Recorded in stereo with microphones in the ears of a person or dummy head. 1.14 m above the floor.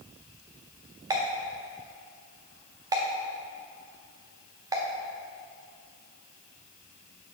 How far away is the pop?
About 0.6 m.